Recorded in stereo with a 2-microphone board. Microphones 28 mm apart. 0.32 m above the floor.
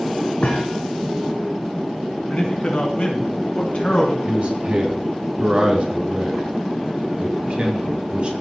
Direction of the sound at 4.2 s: 35° right (ahead or behind).